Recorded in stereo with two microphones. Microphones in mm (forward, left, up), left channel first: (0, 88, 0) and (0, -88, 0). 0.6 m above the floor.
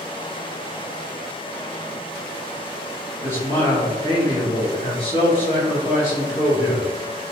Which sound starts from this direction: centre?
A man speaking, at 3.2 s.